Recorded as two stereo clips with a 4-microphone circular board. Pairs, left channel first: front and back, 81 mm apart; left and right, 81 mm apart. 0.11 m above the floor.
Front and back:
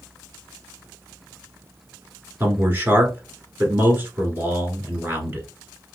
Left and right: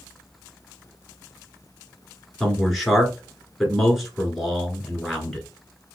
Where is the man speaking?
Straight behind, 1.4 m.